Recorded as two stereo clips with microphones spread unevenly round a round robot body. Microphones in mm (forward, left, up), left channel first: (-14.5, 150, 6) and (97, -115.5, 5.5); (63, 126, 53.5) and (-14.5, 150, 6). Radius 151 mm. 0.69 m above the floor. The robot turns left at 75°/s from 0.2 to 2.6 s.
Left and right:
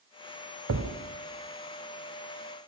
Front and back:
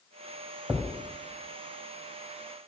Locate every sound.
0.7 s a thud: 115° right, 1.5 m; by 0.9 s 135° right, 1.5 m